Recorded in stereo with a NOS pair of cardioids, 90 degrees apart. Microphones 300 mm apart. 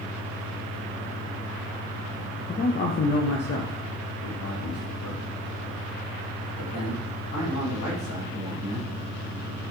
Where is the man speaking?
30° left, 0.8 m; by 8.9 s 80° left, 4.5 m.